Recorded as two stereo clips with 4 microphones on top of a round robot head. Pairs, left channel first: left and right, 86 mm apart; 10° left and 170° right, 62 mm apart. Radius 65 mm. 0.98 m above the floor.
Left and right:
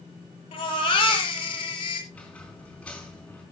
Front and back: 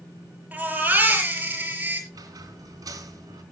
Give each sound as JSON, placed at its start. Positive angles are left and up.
{"t": 0.5, "sound": "a baby crying", "azimuth_deg": 125, "distance_m": 6.0}
{"t": 2.1, "sound": "a squeak", "azimuth_deg": 170, "distance_m": 4.0}